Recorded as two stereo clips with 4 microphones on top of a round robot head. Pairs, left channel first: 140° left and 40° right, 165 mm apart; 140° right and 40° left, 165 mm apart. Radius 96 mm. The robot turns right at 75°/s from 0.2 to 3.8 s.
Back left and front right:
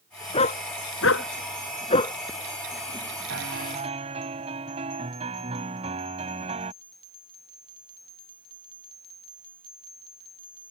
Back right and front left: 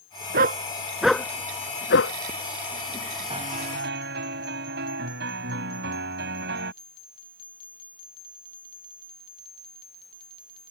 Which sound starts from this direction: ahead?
A piano, at 3.3 s.